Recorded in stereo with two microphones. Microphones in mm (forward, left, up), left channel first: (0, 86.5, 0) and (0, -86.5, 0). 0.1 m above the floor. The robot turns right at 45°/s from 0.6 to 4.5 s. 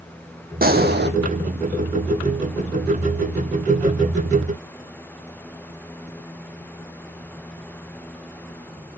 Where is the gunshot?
55° right (ahead or behind), 0.9 m; by 1.1 s 75° right (ahead or behind), 0.9 m.